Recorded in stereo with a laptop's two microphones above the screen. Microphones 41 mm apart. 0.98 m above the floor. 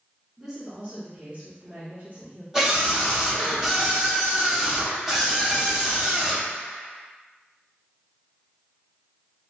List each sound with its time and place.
0.4 s a woman speaking: 10° right (ahead or behind), 0.8 m; by 2.4 s 40° right (ahead or behind), 2 m
2.5 s a scream: 15° right (ahead or behind), 1.1 m